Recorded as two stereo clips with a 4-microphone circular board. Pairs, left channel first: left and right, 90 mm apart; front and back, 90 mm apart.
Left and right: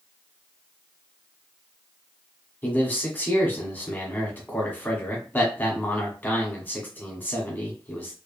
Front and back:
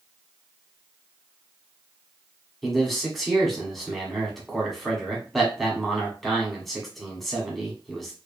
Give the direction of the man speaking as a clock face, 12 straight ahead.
9 o'clock.